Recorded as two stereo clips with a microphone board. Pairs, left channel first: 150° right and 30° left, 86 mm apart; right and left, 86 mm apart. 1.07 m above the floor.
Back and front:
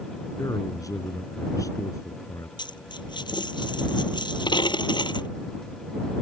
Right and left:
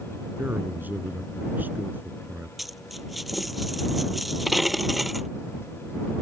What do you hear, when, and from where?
0.4 s a man speaking: 160° left
2.6 s a dropped coin: straight behind